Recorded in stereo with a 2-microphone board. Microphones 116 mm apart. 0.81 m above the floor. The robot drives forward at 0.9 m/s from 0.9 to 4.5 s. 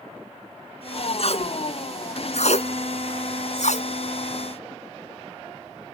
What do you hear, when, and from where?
1.2 s tape being pulled: 60° left (ahead or behind); by 3.9 s 80° left